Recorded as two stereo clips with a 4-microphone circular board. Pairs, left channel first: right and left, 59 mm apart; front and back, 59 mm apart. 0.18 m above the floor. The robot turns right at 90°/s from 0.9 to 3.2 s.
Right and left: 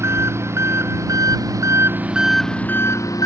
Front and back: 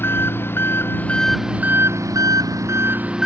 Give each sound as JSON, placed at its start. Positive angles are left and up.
{"t": 0.0, "sound": "an engine running", "azimuth_deg": 50}